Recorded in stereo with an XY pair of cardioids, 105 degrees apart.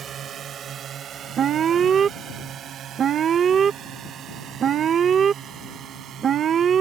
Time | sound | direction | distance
0.0 | a drone | 55° right | ?
1.4 | an alarm | 50° right | ?